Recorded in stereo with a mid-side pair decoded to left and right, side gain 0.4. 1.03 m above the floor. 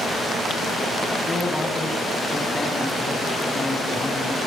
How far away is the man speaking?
About 8.5 m.